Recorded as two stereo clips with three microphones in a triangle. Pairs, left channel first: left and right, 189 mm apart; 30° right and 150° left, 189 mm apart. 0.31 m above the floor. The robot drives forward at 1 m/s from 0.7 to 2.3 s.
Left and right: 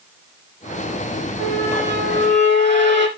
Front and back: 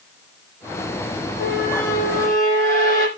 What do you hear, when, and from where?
1.4 s a squeak: 60° right, 5.5 m; by 3.1 s 70° right, 5.5 m